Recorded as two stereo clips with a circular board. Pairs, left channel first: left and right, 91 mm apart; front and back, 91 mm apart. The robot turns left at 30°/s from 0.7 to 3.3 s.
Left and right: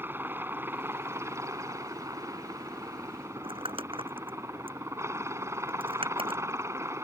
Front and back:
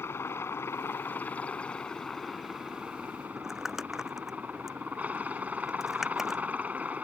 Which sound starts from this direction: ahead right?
A helicopter, at 0.0 s.